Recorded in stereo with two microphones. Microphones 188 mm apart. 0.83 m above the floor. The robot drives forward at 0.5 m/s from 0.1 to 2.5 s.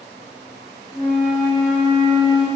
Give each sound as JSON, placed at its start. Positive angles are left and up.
{"t": 0.9, "sound": "a flute", "side_deg": 45, "distance_m": 1.6}